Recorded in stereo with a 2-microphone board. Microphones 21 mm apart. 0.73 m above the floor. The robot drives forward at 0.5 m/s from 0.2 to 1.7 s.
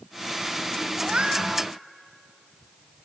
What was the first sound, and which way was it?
A cat meowing, 65° right (ahead or behind).